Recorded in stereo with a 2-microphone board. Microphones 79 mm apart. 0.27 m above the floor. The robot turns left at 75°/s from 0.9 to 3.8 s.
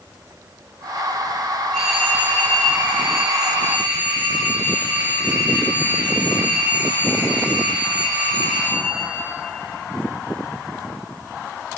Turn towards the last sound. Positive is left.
turn(degrees=-145)